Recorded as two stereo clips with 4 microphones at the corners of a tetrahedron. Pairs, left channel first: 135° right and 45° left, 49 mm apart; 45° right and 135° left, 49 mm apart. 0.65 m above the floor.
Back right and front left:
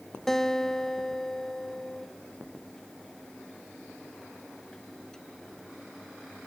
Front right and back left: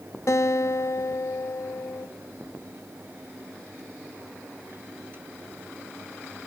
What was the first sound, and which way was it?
A guitar, 50° right.